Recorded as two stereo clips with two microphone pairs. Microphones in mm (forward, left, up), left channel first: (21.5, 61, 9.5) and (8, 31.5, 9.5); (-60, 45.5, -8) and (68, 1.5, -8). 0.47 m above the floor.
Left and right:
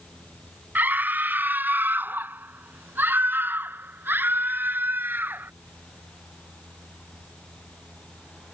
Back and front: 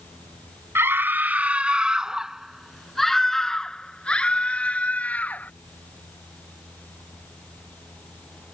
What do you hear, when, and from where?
0.8 s a scream: 90° right; by 5.5 s 120° right